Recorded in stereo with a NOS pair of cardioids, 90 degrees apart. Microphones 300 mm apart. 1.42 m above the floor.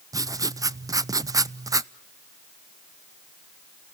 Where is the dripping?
No dripping in this recording.